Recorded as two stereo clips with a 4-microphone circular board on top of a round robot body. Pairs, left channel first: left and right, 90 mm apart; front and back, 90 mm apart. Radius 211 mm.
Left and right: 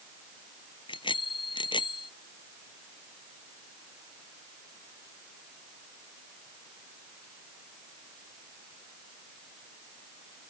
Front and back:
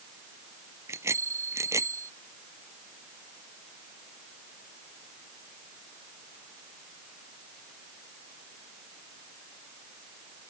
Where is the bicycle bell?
120° left.